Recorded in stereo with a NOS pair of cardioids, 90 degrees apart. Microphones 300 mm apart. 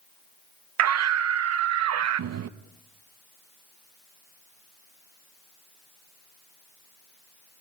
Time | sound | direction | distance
0.8 | a scream | 60° right | 0.9 m